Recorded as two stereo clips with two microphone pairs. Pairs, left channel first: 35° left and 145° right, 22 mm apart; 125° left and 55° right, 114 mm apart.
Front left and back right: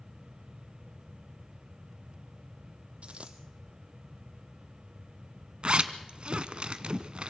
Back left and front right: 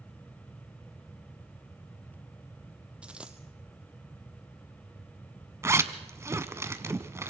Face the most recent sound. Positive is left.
turn(degrees=-120)